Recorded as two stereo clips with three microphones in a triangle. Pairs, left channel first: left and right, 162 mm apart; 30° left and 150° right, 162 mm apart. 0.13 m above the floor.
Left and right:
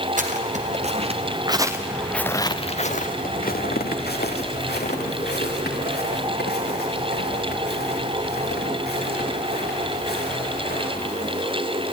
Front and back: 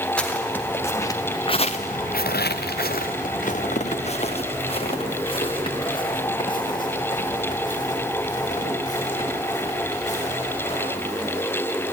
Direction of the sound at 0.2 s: 55° right.